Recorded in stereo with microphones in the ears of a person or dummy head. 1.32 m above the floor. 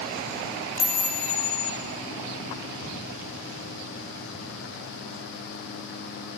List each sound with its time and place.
0.8 s a chime: 25° right (ahead or behind), 9.5 m